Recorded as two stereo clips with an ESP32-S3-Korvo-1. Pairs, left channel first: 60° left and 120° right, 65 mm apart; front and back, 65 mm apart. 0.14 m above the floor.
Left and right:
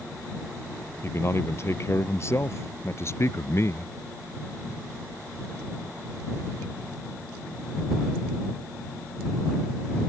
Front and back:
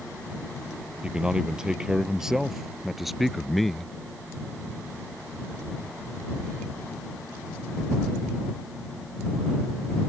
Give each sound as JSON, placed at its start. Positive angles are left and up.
{"t": 1.0, "sound": "a man speaking", "azimuth_deg": 105}